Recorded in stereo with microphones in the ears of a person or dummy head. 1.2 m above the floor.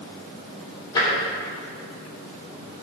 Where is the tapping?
25° left (ahead or behind), 3.5 m.